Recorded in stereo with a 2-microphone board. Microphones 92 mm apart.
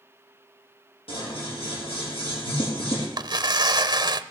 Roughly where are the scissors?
Left.